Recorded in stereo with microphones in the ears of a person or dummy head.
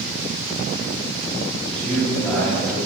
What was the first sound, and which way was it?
A man speaking, 5° left (ahead or behind).